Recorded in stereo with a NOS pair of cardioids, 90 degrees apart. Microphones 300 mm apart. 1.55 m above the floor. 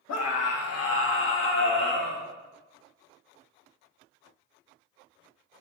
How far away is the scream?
About 1.8 m.